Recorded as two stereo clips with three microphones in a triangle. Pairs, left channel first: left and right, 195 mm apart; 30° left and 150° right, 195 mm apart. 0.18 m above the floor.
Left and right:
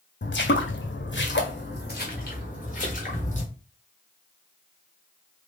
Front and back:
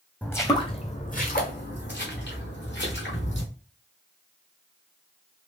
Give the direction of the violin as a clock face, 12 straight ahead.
I don't hear a violin.